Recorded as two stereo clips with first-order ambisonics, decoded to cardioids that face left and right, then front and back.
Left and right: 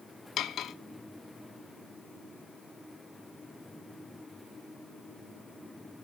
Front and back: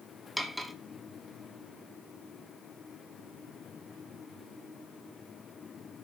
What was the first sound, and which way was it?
Cutlery clinking, 95° left.